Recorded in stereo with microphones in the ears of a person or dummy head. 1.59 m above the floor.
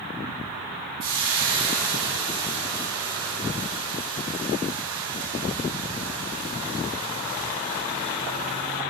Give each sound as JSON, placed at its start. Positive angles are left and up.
{"t": 1.0, "sound": "frying", "side_deg": -20, "distance_m": 5.0}